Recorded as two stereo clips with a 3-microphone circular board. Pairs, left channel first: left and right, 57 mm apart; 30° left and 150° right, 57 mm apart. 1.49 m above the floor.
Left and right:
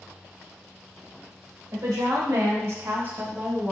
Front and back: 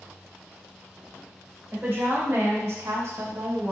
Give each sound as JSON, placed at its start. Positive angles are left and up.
{"t": 1.7, "sound": "a woman speaking", "azimuth_deg": -95, "distance_m": 1.1}